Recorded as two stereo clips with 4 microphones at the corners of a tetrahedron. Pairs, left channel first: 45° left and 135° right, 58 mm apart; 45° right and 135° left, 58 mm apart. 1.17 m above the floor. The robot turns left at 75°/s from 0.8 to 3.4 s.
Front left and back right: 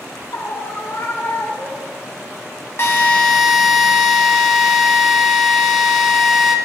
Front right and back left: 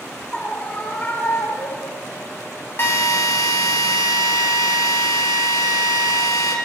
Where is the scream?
20° left, 3.5 m; by 2.0 s 70° right, 3.5 m.